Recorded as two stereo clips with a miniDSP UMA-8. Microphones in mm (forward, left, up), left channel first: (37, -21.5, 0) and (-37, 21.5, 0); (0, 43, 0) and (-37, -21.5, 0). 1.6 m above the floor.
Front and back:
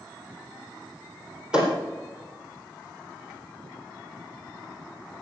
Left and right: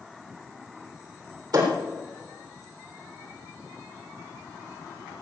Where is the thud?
130° right, 3.5 m.